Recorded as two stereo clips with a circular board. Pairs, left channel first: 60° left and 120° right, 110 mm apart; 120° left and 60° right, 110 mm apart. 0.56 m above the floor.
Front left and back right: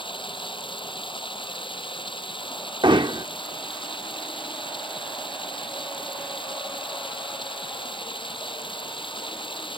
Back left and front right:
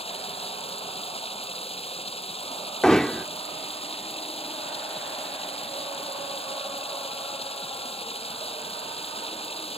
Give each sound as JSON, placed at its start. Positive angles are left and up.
{"t": 0.0, "sound": "running water", "azimuth_deg": 100}
{"t": 2.8, "sound": "hammering", "azimuth_deg": -155}